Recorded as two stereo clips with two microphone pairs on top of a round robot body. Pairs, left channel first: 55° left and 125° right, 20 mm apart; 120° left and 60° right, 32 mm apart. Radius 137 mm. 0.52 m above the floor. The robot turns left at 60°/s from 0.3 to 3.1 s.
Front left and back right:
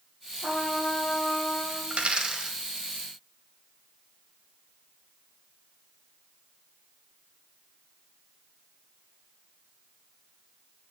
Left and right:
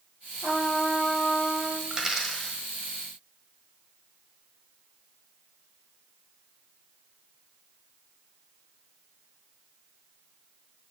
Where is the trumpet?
30° left, 4.5 m; by 1.8 s 55° right, 4.5 m.